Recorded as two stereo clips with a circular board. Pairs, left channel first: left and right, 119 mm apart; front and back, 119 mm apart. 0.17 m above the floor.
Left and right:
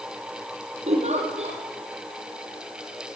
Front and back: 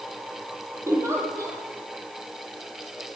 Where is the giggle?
115° right, 7 m.